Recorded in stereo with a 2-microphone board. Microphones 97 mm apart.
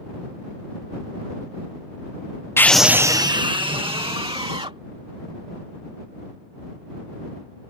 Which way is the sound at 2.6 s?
25° left (ahead or behind).